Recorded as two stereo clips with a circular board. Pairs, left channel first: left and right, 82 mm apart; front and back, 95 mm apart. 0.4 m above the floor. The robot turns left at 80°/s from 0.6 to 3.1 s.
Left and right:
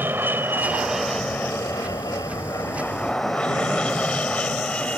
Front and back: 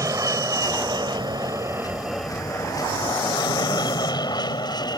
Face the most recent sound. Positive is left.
turn(degrees=20)